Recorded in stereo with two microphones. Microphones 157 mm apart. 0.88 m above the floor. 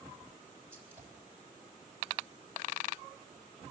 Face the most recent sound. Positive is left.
turn(degrees=-15)  # may be behind; listen again after turning